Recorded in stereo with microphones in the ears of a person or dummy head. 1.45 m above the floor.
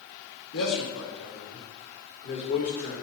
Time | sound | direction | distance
0.5 | a man speaking | 80° left | 2 m